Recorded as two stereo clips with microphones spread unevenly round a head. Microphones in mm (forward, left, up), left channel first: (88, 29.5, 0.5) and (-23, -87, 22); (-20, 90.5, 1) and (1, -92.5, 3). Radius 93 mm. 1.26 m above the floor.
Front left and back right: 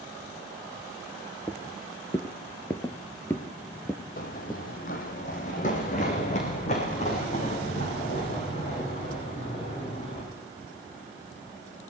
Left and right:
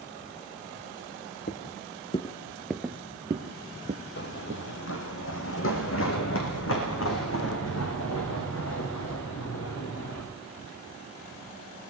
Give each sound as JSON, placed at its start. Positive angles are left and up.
{"t": 1.5, "sound": "footsteps", "azimuth_deg": 125, "distance_m": 1.8}
{"t": 4.2, "sound": "running footsteps", "azimuth_deg": 85, "distance_m": 2.0}